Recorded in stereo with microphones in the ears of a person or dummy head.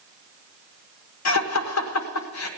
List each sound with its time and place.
1.2 s laughter: 85° left, 1.2 m